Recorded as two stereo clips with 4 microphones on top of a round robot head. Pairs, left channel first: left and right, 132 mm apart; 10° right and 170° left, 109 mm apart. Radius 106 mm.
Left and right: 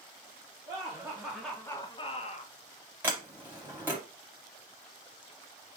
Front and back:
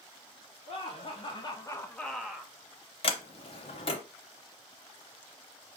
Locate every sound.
0.7 s laughter: 35° right, 1.5 m; by 2.5 s 95° left, 1.3 m
3.0 s a sliding door: 15° right, 0.5 m